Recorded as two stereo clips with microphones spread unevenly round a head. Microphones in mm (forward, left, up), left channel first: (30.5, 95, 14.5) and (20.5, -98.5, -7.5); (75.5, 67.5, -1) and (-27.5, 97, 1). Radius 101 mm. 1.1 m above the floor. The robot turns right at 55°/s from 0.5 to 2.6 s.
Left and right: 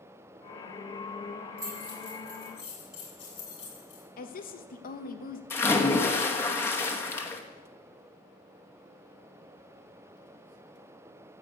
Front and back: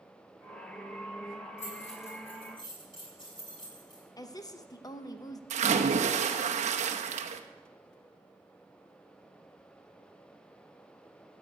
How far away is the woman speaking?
About 0.9 m.